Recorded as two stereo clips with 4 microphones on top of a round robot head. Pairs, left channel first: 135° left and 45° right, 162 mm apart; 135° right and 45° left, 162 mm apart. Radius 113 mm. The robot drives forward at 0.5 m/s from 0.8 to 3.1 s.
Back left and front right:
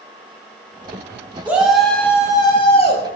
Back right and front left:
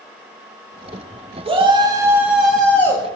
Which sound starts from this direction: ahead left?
A shout, at 1.4 s.